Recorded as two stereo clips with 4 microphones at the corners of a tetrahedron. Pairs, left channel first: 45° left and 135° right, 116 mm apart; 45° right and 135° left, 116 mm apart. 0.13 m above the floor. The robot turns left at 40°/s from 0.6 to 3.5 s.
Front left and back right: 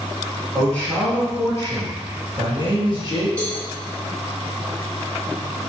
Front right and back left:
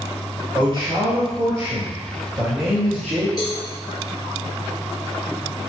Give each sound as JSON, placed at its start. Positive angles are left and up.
{"t": 0.5, "sound": "a man speaking", "azimuth_deg": 125, "distance_m": 1.5}
{"t": 3.4, "sound": "a cowbell", "azimuth_deg": -30, "distance_m": 1.7}